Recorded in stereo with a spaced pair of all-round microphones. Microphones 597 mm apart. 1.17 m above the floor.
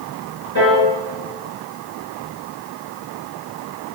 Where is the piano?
40° left (ahead or behind), 3 m.